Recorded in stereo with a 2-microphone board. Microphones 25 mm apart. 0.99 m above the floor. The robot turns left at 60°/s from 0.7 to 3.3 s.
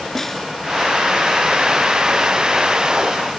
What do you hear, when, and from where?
0.1 s a snare drum: 5° left (ahead or behind), 1.7 m